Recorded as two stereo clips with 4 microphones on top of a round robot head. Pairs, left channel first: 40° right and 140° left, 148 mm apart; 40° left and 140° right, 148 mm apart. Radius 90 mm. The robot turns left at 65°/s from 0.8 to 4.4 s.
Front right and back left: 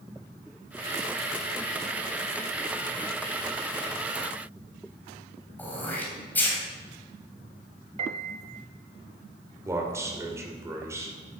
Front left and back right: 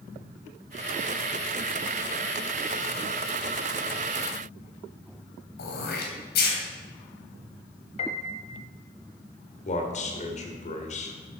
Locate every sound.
5.6 s throat clearing: 40° left, 3 m
8.0 s a piano: 90° left, 1.1 m
9.7 s a man speaking: 70° left, 2.5 m